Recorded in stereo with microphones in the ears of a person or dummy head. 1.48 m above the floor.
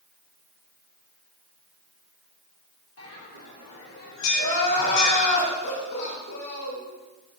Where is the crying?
55° left (ahead or behind), 3 m.